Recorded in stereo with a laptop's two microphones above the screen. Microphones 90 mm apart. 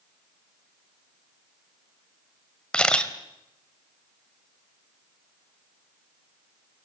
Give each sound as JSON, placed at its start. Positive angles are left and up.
{"t": 2.7, "sound": "a camera shutter", "side_deg": 10, "distance_m": 2.0}